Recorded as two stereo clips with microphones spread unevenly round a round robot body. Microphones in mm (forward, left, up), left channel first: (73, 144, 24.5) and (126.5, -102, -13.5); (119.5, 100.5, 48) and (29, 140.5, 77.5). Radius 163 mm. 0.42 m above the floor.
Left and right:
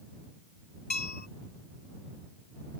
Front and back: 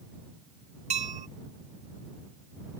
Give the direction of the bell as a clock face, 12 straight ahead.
6 o'clock.